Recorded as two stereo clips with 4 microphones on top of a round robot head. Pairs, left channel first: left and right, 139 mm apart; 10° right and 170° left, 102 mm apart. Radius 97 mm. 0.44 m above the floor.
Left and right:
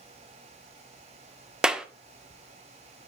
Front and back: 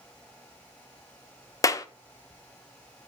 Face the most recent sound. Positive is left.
turn(degrees=-10)